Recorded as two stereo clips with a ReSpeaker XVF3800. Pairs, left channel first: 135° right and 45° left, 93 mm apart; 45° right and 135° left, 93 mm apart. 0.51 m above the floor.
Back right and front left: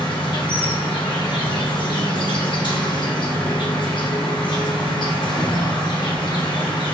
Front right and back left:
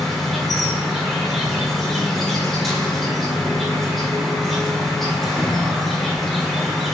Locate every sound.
0.0 s an insect: 135° right, 0.9 m